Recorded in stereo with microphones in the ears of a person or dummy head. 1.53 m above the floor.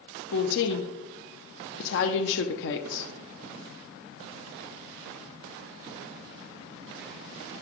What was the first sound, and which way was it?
A woman speaking, 60° left (ahead or behind).